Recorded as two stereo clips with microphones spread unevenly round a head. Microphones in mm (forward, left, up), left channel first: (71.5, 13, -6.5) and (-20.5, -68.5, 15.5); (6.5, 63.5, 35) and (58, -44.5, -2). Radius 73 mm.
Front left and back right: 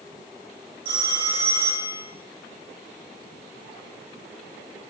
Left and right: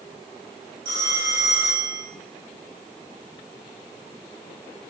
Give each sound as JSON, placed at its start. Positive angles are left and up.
{"t": 0.8, "sound": "a phone ringing", "azimuth_deg": -105, "distance_m": 1.6}